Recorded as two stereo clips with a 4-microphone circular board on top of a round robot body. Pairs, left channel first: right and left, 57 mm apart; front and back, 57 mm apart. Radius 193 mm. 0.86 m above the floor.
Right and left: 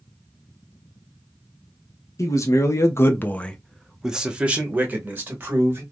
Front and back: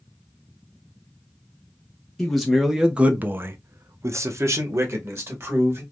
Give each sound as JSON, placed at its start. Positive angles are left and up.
{"t": 2.2, "sound": "a man speaking", "azimuth_deg": -85, "distance_m": 1.0}